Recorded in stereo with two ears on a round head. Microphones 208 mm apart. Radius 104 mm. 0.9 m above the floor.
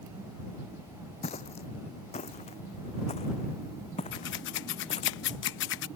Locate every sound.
1.2 s footsteps: 30° left (ahead or behind)
4.1 s scissors: 55° left (ahead or behind)